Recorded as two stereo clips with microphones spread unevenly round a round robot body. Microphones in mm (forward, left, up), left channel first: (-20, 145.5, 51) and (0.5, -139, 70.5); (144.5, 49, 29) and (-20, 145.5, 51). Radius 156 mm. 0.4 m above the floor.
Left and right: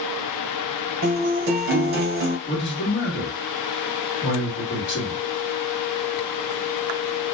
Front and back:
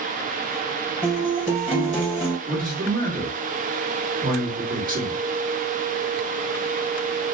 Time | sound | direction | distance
1.0 | a guitar | 130° right | 2.0 m
2.5 | a man speaking | 115° left | 1.5 m